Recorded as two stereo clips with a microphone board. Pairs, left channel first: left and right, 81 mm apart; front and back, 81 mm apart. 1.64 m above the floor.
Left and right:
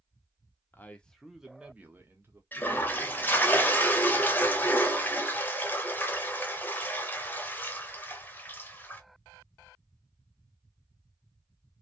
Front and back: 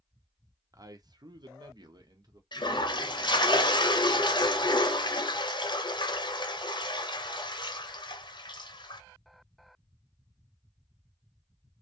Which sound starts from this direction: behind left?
A man speaking, at 0.7 s.